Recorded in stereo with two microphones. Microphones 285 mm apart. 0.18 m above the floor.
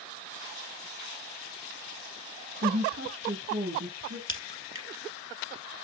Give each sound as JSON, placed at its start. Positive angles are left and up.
{"t": 2.6, "sound": "a woman speaking", "side_deg": -55, "distance_m": 1.8}
{"t": 4.3, "sound": "a crack", "side_deg": -45, "distance_m": 1.1}